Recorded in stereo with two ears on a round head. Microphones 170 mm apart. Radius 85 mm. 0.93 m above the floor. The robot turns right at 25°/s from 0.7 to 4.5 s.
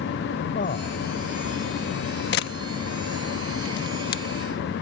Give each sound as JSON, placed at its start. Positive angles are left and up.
{"t": 0.6, "sound": "a man speaking", "side_deg": 45}
{"t": 2.3, "sound": "a camera shutter", "side_deg": 60}